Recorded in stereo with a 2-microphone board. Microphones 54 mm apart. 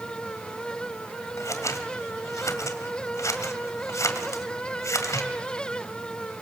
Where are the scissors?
70° left (ahead or behind), 2.0 m.